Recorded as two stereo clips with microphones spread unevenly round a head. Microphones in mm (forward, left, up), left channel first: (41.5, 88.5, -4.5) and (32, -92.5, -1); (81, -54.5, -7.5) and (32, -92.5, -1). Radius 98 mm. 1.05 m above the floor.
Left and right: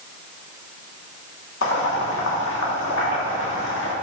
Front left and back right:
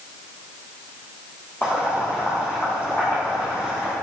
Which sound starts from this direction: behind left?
Boiling, at 1.6 s.